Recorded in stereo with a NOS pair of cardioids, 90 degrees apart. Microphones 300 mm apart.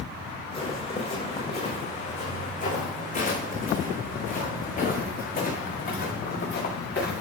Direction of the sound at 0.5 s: 20° left.